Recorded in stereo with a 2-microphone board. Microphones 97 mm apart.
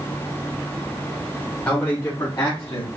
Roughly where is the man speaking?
Centre.